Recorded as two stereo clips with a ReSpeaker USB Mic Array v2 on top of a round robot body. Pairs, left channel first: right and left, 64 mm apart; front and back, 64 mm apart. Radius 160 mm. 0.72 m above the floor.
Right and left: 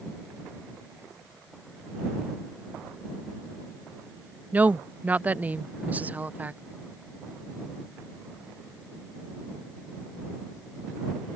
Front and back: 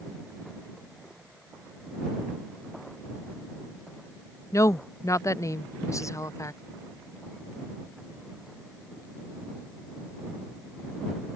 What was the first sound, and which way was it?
A woman speaking, 30° left.